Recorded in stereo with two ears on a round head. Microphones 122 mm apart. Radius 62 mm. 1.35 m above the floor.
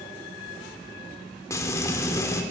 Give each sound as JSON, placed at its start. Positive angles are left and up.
{"t": 1.5, "sound": "frying", "side_deg": 25, "distance_m": 3.5}